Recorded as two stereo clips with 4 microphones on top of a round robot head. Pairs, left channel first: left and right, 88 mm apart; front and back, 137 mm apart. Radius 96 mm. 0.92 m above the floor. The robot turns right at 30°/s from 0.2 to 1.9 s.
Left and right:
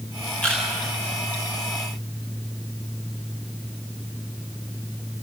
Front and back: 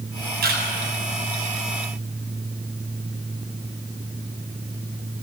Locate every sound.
0.4 s a camera shutter: 170° left, 8 m; by 0.6 s 175° left, 8 m